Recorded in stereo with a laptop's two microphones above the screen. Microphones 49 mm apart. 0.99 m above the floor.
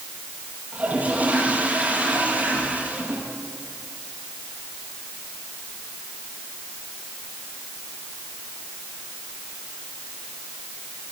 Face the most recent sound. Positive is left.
turn(degrees=-30)  # may be behind; listen again after turning